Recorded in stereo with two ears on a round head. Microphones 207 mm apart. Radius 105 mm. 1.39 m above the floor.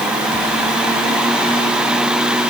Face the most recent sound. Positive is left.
No sound to turn to.